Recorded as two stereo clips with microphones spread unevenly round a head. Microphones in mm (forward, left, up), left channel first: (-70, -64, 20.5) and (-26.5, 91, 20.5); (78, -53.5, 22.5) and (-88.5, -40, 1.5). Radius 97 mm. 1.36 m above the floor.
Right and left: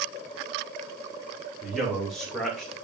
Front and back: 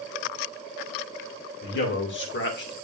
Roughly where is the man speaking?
Ahead.